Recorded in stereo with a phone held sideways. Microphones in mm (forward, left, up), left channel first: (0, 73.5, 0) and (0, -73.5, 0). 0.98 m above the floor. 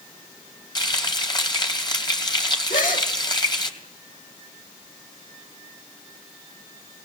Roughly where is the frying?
Left.